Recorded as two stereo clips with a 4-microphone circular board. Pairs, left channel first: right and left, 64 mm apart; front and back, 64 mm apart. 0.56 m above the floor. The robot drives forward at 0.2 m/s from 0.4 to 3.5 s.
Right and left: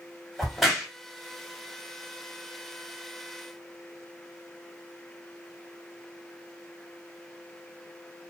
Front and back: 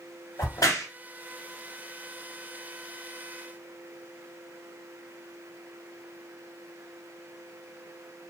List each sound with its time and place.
0.4 s a crack: straight ahead, 1.2 m